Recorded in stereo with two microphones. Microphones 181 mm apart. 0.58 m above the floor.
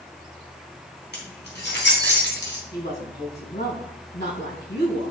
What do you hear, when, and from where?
1.1 s keys jangling: 65° left (ahead or behind), 3 m; by 2.6 s 80° left, 3 m
2.7 s a woman speaking: 75° left (ahead or behind), 5 m